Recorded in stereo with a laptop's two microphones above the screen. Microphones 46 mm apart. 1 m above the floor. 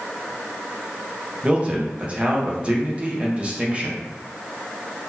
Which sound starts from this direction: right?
A man speaking, at 1.4 s.